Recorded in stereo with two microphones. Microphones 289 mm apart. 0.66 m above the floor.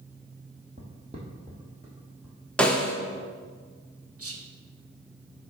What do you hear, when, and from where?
0.8 s footsteps: 25° right (ahead or behind), 1.7 m; by 2.4 s 5° right (ahead or behind), 2.5 m
2.6 s a snare drum: 5° left (ahead or behind), 0.8 m
4.2 s whispering: 50° right (ahead or behind), 0.9 m